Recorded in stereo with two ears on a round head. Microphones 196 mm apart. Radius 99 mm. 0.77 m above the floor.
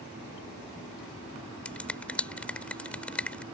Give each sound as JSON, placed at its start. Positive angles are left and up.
{"t": 1.6, "sound": "a finger snap", "side_deg": 5}